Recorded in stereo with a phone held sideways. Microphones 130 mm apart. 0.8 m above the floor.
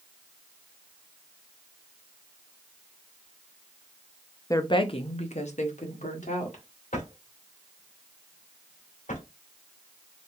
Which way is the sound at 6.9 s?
85° left.